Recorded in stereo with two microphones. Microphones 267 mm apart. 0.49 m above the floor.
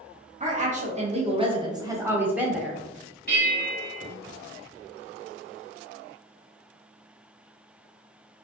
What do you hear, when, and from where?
0.4 s a woman speaking: 30° right (ahead or behind), 0.9 m; by 2.8 s centre (ahead or behind), 1.1 m
3.3 s a bell: 35° left (ahead or behind), 1.5 m